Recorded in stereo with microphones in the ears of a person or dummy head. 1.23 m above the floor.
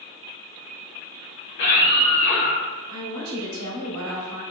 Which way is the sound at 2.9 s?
70° right (ahead or behind).